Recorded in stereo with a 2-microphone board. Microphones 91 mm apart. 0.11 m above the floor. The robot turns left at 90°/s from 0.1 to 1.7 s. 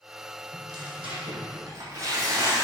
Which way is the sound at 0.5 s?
35° right.